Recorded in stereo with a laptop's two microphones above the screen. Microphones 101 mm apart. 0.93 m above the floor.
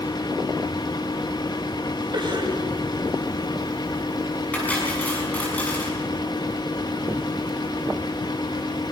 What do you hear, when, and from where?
0.0 s a fan: 45° left (ahead or behind), 1.2 m
2.1 s a cough: 45° right (ahead or behind), 5.5 m
4.5 s cutlery clinking: 15° left (ahead or behind), 5.5 m